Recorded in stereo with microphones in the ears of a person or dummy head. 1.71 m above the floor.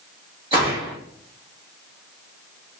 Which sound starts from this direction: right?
A gunshot, at 0.5 s.